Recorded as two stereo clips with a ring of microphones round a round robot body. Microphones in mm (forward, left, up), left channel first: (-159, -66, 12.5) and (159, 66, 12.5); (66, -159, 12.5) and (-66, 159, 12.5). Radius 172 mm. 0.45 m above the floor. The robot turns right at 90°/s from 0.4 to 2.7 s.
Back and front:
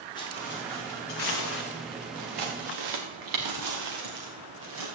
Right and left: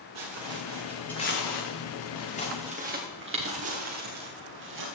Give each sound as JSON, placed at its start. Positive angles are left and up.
{"t": 0.1, "sound": "footsteps", "azimuth_deg": 125, "distance_m": 4.0}